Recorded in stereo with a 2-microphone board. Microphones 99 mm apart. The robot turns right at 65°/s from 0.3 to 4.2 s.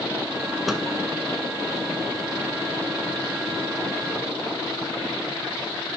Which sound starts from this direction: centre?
A microwave, at 0.7 s.